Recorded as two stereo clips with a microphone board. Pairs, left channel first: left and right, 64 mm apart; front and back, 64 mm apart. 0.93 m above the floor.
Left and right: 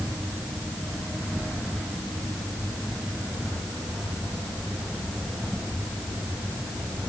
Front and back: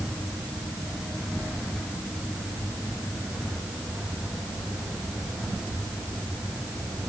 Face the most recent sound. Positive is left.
No sound to turn to.